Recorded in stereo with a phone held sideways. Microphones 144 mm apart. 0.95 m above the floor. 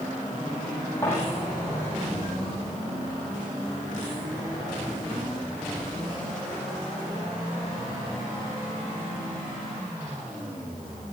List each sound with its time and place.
1.0 s a dropped coin: 15° left (ahead or behind), 7.5 m